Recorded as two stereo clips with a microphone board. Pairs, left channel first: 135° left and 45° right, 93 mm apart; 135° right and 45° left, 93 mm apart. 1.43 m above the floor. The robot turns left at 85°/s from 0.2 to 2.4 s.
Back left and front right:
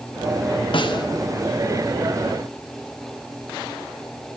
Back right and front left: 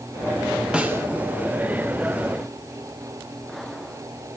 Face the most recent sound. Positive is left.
turn(degrees=-15)